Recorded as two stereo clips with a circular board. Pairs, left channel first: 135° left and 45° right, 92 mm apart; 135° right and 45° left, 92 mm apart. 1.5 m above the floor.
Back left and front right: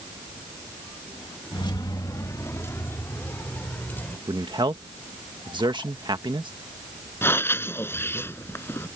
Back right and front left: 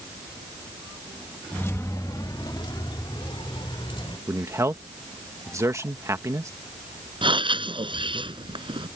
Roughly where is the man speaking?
Ahead.